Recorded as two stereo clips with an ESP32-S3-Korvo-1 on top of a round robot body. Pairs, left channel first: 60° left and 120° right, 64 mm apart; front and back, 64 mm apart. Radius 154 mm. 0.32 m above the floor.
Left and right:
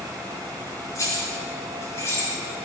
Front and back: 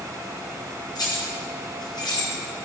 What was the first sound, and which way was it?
Keys jangling, 20° left.